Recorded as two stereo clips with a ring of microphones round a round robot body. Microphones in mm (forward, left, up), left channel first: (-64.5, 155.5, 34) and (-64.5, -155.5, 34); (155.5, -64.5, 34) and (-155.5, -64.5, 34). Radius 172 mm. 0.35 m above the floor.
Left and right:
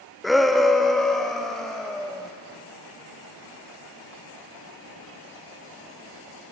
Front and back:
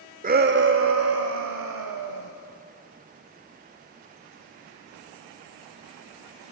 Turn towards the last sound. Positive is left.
turn(degrees=180)